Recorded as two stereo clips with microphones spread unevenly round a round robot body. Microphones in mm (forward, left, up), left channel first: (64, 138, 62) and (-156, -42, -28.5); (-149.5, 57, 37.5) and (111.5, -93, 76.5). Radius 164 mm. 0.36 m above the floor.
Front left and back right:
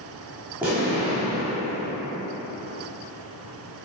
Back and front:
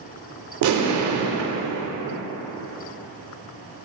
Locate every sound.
0.6 s an explosion: 65° right, 0.5 m